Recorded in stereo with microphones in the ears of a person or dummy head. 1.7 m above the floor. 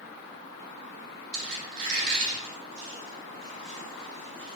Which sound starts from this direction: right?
A squeak, at 1.3 s.